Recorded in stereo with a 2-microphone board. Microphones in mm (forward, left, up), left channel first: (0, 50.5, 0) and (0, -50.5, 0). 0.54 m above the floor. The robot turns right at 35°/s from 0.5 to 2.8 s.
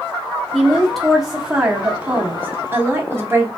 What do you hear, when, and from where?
0.5 s a woman speaking: 10° left (ahead or behind), 0.6 m; by 3.5 s 20° right (ahead or behind), 0.6 m